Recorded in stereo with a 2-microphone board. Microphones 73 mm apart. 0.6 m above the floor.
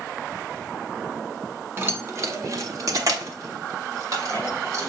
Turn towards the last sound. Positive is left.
turn(degrees=-45)  # may be behind; listen again after turning